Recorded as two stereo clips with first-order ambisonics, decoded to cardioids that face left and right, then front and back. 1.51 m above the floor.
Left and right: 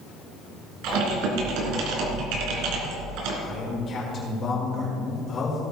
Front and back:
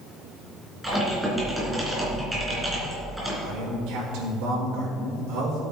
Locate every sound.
0.8 s typing on a keyboard: 95° right, 3 m
3.4 s a man speaking: 155° left, 4.5 m